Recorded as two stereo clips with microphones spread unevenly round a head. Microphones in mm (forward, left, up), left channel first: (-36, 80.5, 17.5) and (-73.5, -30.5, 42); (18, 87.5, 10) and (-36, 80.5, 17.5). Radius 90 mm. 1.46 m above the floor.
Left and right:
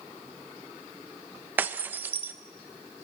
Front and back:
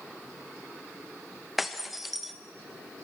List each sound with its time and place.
1.6 s breaking glass: 110° right, 0.6 m